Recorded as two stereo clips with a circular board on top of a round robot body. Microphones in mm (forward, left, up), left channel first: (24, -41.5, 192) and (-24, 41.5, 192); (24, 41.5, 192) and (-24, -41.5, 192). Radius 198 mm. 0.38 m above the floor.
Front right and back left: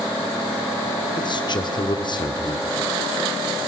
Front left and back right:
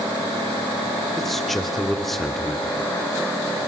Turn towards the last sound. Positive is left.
turn(degrees=-30)